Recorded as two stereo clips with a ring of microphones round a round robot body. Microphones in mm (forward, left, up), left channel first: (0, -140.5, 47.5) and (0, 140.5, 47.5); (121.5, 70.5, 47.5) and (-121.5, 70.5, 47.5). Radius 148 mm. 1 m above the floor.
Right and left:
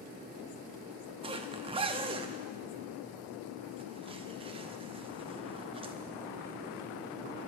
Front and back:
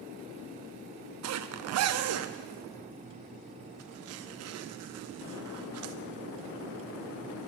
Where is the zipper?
160° left, 0.7 m.